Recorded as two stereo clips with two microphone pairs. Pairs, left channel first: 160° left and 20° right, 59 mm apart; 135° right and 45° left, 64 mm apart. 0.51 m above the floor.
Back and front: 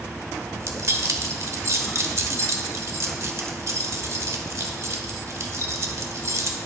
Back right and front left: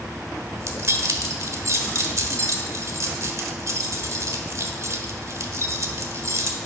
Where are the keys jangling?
15° left, 1.2 m.